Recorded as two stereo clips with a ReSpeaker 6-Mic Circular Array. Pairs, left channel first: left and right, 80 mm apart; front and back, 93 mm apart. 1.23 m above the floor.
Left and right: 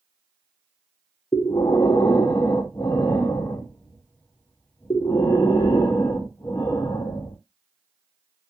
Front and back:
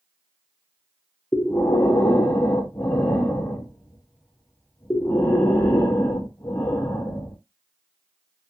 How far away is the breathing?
About 0.6 m.